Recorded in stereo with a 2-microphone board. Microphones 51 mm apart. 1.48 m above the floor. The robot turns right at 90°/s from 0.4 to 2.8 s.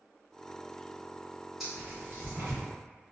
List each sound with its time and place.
1.6 s tearing paper: 5° right (ahead or behind), 1.2 m; by 2.6 s 85° right, 1.2 m